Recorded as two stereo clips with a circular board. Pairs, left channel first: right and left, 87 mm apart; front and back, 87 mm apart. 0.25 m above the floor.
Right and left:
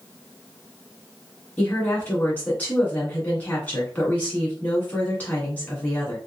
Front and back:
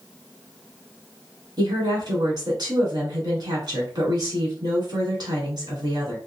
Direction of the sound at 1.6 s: 160° right.